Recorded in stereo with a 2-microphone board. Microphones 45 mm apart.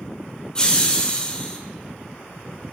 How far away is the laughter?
About 0.9 m.